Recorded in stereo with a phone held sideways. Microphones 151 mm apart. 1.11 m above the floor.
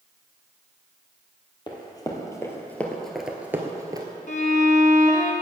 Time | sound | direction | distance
1.7 | running footsteps | 30° left (ahead or behind) | 1.8 m
4.3 | a violin | 55° left (ahead or behind) | 1.1 m